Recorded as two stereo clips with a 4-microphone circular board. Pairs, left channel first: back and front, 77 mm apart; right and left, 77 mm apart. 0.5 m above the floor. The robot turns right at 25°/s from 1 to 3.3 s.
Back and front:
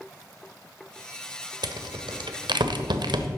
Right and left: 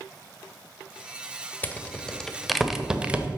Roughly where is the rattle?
Ahead.